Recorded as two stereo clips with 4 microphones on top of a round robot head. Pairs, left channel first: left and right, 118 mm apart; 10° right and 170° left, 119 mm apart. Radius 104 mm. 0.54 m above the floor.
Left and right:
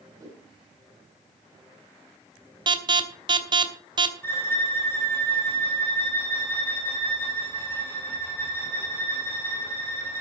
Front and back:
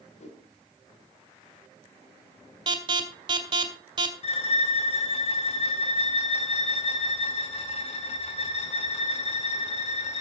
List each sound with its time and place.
0.2 s a whoosh: 25° right, 5 m
2.7 s an alarm: 135° right, 2.5 m
4.2 s a violin: 20° left, 3 m